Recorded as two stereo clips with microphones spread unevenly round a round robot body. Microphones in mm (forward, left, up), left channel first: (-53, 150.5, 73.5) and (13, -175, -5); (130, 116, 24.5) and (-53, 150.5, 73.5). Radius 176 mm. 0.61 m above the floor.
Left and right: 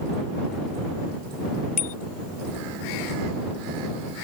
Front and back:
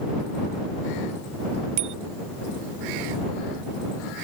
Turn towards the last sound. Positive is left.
turn(degrees=170)